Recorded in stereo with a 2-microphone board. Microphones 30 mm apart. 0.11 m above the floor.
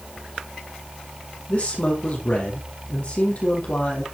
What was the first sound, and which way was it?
A man speaking, 45° left (ahead or behind).